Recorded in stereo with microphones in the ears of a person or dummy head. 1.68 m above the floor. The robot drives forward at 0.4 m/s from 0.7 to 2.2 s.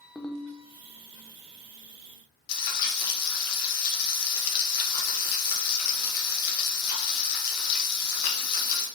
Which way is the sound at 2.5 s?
60° left (ahead or behind).